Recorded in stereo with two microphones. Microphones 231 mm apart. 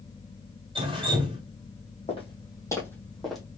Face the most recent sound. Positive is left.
turn(degrees=0)  # may be behind; listen again after turning